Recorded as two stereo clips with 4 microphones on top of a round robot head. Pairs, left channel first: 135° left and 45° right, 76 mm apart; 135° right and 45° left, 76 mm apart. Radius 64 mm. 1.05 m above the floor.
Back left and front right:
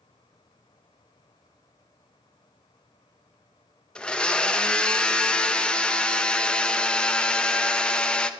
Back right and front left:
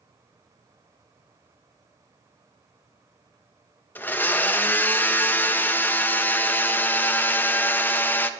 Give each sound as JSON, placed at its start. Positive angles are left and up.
{"t": 4.0, "sound": "a blender", "azimuth_deg": -165, "distance_m": 0.6}